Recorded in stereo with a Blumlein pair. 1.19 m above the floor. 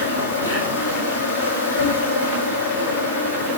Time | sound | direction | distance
0.0 | an insect | 70° left | 7 m